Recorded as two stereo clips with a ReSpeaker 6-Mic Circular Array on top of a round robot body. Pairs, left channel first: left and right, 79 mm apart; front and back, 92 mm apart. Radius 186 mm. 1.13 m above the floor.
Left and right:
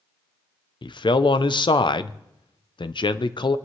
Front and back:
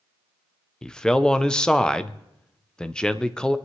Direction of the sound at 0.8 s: 80° left.